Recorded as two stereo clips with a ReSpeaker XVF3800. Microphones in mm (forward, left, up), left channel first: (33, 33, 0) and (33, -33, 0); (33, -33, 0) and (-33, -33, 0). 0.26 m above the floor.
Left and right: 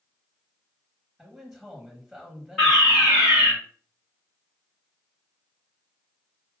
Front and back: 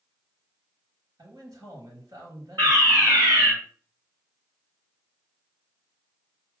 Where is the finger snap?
I don't hear a finger snap.